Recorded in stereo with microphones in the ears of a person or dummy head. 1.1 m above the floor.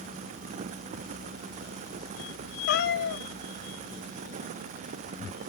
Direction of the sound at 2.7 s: 60° left (ahead or behind).